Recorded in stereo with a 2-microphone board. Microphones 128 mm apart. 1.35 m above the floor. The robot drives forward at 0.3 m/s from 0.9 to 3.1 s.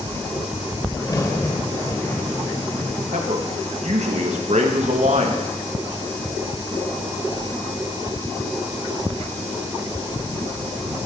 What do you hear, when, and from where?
1.0 s a crack: 30° left (ahead or behind), 1.4 m; by 3.0 s 25° left (ahead or behind), 1.8 m
3.1 s a man speaking: 65° right (ahead or behind), 1.5 m